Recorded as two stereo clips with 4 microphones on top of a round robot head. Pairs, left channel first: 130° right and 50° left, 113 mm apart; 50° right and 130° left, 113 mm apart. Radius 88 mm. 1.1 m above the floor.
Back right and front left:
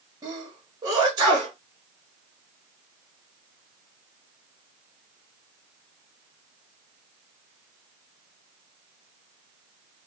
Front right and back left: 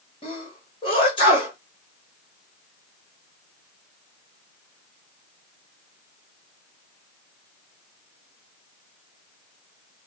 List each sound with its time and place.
0.2 s a sneeze: 10° right, 1.3 m